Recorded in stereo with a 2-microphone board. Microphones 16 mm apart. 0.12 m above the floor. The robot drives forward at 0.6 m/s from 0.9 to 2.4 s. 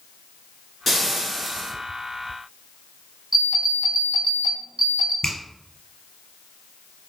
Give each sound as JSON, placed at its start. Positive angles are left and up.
{"t": 0.9, "sound": "frying", "side_deg": 0, "distance_m": 1.1}
{"t": 3.3, "sound": "an alarm clock", "side_deg": -25, "distance_m": 1.7}
{"t": 5.2, "sound": "a finger snap", "side_deg": 40, "distance_m": 1.8}